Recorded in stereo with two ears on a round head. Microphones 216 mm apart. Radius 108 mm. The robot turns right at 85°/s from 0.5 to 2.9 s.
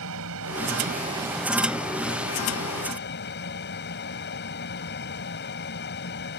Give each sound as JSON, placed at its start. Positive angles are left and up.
{"t": 0.0, "sound": "an aircraft", "azimuth_deg": -75}